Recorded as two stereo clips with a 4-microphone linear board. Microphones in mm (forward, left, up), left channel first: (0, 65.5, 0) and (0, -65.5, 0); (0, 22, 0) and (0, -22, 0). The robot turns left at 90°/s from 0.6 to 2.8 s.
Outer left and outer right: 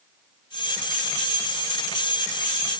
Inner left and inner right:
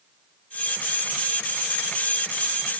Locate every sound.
Only background noise.